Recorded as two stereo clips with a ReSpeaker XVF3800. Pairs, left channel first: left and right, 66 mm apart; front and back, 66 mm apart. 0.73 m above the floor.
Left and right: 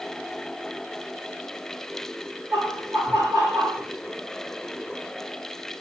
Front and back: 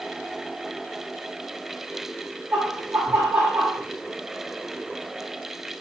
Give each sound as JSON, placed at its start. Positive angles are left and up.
{"t": 2.5, "sound": "laughter", "azimuth_deg": -100, "distance_m": 4.5}